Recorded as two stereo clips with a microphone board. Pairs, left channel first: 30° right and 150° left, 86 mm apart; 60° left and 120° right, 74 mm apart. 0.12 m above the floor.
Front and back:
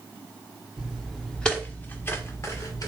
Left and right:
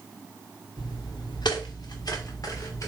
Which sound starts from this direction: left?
Footsteps, at 0.8 s.